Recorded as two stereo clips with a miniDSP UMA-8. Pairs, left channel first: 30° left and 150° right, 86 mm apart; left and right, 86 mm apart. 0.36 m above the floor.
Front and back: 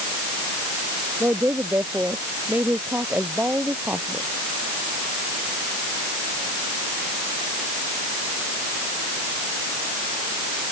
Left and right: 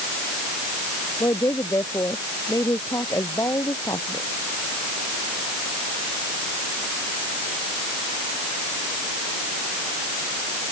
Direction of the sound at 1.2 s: 145° left.